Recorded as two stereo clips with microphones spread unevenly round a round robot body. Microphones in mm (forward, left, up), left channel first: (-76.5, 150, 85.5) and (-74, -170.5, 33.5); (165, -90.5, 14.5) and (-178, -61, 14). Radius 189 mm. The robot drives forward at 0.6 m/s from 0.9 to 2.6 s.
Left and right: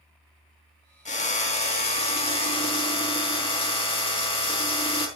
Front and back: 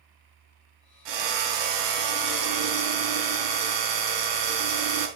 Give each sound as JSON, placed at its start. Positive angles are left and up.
{"t": 1.1, "sound": "a drill", "azimuth_deg": 160, "distance_m": 3.0}